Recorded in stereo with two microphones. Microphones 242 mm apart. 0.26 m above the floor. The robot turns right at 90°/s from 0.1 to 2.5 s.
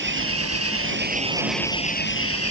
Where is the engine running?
130° right; by 2.5 s 85° left.